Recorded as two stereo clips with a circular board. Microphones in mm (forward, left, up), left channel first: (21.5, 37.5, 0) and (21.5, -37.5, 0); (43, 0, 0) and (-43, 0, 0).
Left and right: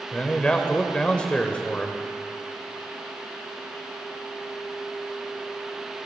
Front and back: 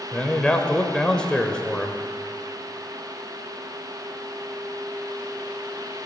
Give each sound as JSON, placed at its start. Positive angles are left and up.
{"t": 0.1, "sound": "a man speaking", "azimuth_deg": 55, "distance_m": 1.1}